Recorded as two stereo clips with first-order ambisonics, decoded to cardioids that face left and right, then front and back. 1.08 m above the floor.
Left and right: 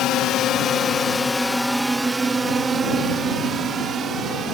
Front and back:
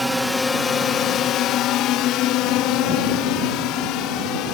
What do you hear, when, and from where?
0.0 s a drone: 90° left; by 4.5 s 30° right